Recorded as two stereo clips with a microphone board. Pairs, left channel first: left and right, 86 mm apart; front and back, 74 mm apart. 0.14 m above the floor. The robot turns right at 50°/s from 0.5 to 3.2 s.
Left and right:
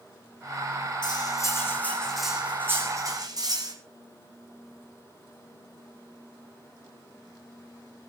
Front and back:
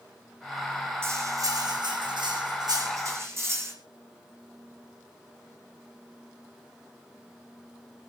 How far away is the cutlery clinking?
About 5 m.